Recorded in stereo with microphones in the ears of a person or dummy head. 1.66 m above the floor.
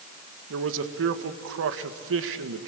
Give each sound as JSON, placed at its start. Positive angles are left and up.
{"t": 0.5, "sound": "a man speaking", "side_deg": -65, "distance_m": 1.7}